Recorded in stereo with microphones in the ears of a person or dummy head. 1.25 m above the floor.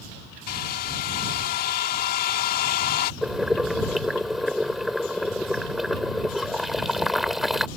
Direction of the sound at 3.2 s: 10° left (ahead or behind).